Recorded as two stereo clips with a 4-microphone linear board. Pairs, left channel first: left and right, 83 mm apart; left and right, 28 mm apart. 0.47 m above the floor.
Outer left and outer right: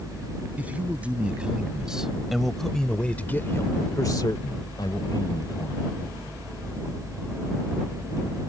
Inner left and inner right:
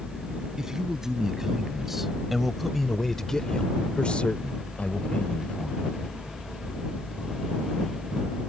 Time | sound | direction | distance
0.6 | a man speaking | 20° right (ahead or behind) | ?